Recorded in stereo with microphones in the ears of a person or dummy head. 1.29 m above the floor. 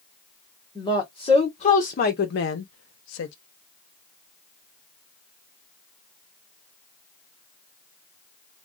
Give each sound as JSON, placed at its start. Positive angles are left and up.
{"t": 0.8, "sound": "a woman speaking", "side_deg": 20, "distance_m": 1.5}